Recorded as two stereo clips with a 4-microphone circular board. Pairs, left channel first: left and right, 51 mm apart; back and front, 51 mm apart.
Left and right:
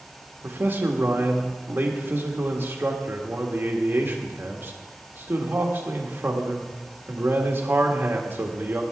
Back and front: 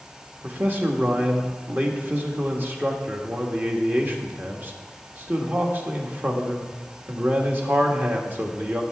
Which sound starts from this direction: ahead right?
A man speaking, at 0.4 s.